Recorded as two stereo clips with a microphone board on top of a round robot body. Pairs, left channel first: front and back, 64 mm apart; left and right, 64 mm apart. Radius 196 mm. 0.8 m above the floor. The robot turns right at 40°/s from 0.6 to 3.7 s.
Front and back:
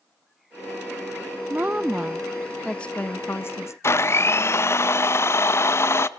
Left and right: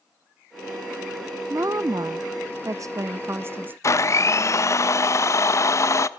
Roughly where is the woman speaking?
Behind right.